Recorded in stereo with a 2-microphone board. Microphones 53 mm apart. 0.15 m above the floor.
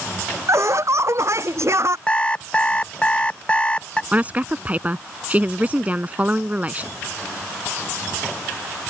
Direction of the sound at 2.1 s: 20° left (ahead or behind).